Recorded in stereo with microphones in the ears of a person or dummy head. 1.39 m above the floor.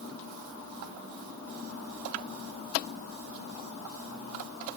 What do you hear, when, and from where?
Only background noise.